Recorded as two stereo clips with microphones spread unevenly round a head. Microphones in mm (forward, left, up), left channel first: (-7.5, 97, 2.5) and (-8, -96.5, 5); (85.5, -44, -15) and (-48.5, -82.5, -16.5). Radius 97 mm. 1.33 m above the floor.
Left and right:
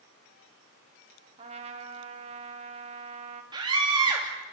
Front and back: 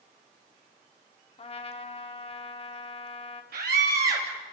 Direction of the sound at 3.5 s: 160° right.